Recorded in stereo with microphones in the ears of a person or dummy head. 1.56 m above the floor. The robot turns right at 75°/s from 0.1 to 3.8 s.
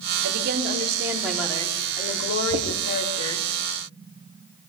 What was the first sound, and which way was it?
A woman speaking, 70° right.